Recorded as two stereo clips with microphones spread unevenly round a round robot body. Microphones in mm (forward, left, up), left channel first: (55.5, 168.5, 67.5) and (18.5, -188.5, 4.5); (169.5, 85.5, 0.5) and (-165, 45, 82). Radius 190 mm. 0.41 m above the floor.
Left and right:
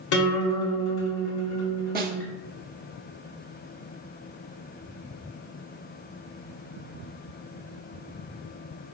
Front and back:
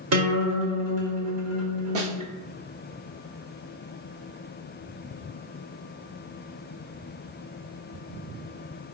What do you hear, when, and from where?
0.1 s a guitar: 140° left, 1.9 m
1.9 s a snare drum: 130° right, 0.8 m